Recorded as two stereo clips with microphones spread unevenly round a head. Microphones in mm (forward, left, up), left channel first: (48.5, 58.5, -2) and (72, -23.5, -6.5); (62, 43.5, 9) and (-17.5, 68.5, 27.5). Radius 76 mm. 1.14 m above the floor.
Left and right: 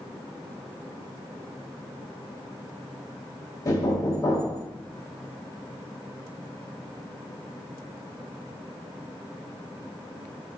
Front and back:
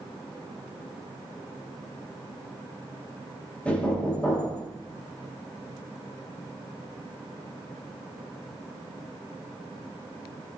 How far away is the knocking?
About 1.8 m.